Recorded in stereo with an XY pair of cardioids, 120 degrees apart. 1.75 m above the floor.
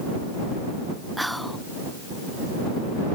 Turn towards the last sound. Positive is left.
turn(degrees=0)